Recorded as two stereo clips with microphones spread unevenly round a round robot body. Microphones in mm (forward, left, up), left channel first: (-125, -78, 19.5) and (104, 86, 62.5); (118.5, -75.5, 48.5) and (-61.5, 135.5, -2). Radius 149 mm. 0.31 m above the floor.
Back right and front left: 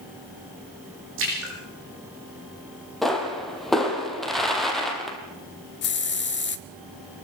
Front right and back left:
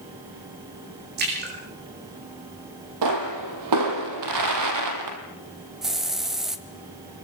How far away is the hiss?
About 1.2 m.